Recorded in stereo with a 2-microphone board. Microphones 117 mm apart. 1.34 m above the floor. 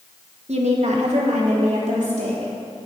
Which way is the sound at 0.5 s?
65° right (ahead or behind).